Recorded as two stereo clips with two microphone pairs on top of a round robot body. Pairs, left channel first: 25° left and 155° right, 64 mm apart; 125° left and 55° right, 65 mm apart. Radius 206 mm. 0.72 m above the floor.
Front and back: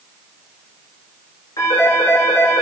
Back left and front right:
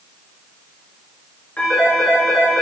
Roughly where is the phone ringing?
Ahead left.